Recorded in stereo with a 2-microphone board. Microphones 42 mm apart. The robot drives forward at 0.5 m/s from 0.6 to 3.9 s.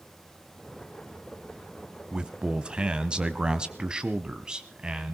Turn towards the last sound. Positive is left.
turn(degrees=-20)  # may be behind; listen again after turning